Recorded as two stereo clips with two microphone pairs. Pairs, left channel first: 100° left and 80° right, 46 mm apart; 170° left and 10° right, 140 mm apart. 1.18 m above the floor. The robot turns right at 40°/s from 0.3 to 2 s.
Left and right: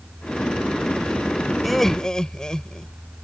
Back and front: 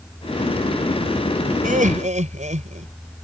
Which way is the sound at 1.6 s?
10° left.